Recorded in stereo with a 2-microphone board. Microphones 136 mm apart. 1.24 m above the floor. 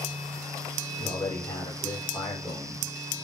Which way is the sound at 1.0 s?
35° left (ahead or behind).